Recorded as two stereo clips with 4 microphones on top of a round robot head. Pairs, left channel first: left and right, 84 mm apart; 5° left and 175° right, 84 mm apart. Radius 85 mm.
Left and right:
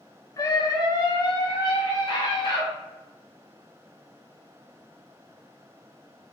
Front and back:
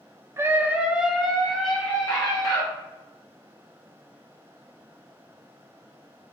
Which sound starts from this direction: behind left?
A scream, at 0.4 s.